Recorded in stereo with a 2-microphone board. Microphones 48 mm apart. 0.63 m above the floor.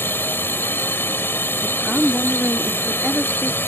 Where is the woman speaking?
5° right (ahead or behind).